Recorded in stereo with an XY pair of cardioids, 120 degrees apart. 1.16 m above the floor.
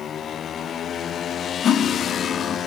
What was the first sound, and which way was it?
Cutlery clinking, 50° left.